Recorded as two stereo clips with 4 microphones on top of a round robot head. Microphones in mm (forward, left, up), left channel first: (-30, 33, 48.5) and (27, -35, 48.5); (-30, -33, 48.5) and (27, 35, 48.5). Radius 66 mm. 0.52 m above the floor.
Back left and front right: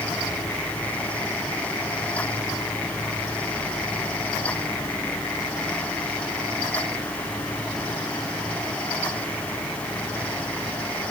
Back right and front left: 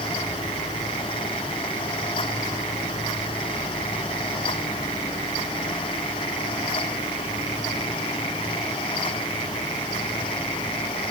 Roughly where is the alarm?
No alarm in this recording.